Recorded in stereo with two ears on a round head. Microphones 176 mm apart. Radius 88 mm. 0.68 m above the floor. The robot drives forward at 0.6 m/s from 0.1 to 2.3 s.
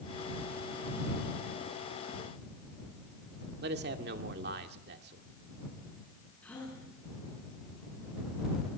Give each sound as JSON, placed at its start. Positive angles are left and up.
{"t": 3.6, "sound": "a man speaking", "side_deg": -55, "distance_m": 2.0}
{"t": 6.4, "sound": "a gasp", "side_deg": 5, "distance_m": 9.0}